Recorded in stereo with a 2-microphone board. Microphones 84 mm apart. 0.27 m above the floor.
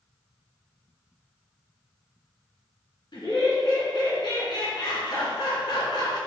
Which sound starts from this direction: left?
Laughter, at 3.1 s.